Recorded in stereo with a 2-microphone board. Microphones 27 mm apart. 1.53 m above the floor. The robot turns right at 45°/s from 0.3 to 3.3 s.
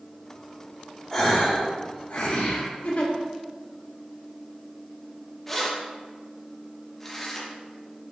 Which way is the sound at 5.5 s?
10° left (ahead or behind).